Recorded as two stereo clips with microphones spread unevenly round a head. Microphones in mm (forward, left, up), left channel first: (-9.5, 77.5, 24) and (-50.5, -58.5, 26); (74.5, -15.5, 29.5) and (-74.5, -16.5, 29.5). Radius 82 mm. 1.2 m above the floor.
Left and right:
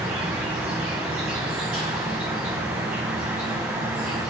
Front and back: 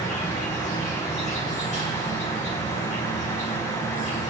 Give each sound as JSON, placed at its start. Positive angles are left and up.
{"t": 0.0, "sound": "an insect", "azimuth_deg": -20, "distance_m": 1.7}